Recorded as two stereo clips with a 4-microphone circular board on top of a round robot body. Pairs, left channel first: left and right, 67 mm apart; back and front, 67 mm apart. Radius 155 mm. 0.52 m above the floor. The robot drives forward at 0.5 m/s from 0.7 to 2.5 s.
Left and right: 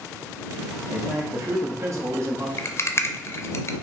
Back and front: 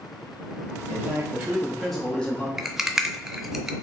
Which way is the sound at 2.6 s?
85° left.